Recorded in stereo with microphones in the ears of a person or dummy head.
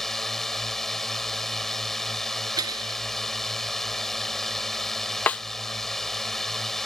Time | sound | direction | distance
0.0 | a drone | 5° left (ahead or behind) | ?
2.6 | breaking glass | 25° right (ahead or behind) | ?
5.3 | a snare drum | 5° left (ahead or behind) | ?